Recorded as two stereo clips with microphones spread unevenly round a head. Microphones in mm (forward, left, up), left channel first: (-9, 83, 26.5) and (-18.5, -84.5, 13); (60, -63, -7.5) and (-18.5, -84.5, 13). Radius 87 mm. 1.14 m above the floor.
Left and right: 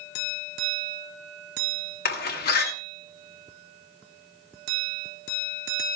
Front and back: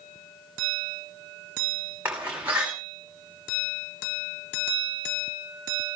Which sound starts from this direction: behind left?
A door slam, at 2.0 s.